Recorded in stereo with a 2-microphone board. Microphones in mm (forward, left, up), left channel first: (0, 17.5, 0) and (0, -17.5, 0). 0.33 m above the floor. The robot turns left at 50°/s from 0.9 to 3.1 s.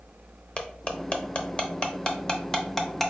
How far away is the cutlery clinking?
About 0.5 m.